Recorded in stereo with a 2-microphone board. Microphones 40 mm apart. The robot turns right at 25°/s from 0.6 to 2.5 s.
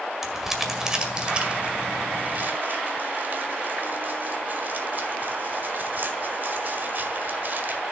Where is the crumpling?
10° right (ahead or behind), 1.8 m; by 7.8 s 50° right (ahead or behind), 1.8 m.